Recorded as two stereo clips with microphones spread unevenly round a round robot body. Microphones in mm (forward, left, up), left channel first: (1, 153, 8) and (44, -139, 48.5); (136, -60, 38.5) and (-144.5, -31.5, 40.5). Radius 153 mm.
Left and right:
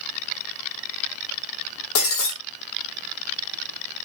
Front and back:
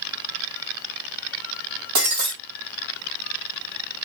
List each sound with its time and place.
1.9 s breaking glass: 135° left, 3 m